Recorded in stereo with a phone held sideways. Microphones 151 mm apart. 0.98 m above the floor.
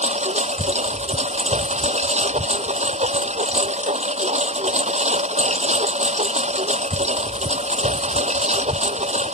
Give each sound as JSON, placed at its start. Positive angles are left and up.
{"t": 0.0, "sound": "a lawn mower", "side_deg": -50}